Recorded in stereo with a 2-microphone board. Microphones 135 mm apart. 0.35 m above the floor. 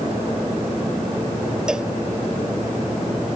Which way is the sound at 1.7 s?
5° right (ahead or behind).